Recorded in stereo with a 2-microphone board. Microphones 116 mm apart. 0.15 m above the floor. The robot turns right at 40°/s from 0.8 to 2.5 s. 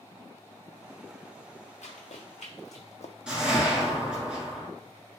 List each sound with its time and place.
1.8 s running footsteps: 80° left, 1.1 m; by 3.1 s 85° left, 0.5 m
3.3 s a whoosh: 5° right (ahead or behind), 0.8 m